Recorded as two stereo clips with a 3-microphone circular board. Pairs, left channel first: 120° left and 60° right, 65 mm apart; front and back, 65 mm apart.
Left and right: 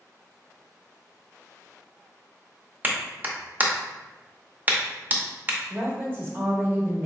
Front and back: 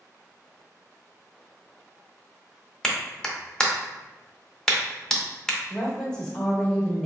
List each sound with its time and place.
2.8 s a clap: 70° right, 0.6 m
5.7 s a woman speaking: 70° right, 1.1 m